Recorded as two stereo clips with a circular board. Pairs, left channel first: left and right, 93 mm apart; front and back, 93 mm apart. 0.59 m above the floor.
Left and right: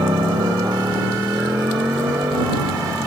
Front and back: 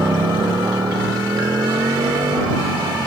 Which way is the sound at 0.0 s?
125° right.